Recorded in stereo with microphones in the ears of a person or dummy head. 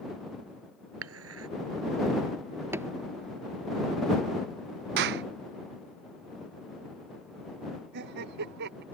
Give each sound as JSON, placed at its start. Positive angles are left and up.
{"t": 1.0, "sound": "dishes clattering", "side_deg": -85}
{"t": 2.7, "sound": "a thud", "side_deg": -15}
{"t": 5.0, "sound": "a clap", "side_deg": -60}
{"t": 7.9, "sound": "laughter", "side_deg": -60}